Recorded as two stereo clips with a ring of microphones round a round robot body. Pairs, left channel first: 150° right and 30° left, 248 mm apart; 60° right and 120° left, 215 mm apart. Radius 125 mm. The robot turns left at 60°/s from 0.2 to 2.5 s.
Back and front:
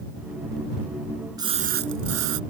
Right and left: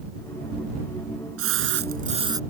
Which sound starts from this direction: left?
A splash, at 1.4 s.